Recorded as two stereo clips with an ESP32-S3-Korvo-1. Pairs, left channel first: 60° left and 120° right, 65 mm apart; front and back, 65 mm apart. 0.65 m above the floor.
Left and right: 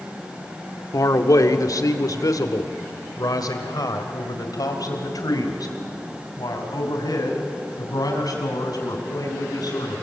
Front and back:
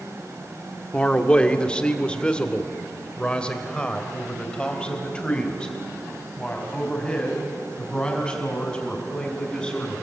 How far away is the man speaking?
About 1.5 m.